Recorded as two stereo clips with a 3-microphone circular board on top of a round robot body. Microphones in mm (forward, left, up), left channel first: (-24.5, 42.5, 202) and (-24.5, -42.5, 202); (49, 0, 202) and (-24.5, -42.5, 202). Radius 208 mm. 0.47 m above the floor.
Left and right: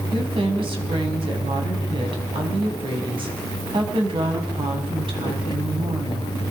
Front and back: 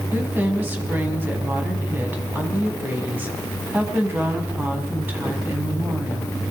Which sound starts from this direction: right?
A woman speaking, at 0.1 s.